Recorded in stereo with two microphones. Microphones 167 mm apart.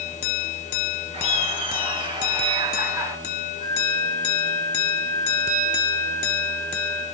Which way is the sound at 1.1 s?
35° right (ahead or behind).